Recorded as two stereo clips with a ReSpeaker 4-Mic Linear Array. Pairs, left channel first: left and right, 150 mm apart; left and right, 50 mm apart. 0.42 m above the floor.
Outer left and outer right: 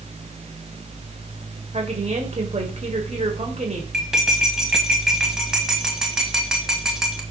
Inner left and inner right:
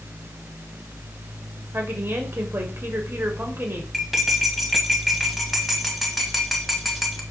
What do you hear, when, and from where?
1.7 s a woman speaking: 50° right (ahead or behind), 1.8 m
3.9 s cutlery clinking: 5° right (ahead or behind), 1.5 m